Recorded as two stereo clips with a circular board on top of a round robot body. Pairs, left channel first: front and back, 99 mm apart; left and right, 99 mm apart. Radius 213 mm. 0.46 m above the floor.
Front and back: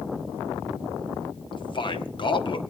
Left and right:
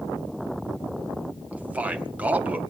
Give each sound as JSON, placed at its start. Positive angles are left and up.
{"t": 1.5, "sound": "a man speaking", "azimuth_deg": -15, "distance_m": 1.9}